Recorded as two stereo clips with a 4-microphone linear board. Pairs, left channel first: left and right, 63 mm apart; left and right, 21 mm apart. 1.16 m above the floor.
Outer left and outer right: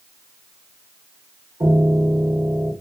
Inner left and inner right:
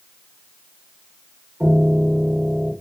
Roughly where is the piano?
Right.